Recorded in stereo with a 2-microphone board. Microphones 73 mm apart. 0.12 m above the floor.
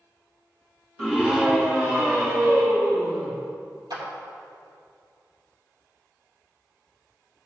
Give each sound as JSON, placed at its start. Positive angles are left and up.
{"t": 1.0, "sound": "a scream", "side_deg": -5, "distance_m": 1.7}
{"t": 3.9, "sound": "a clap", "side_deg": -70, "distance_m": 3.5}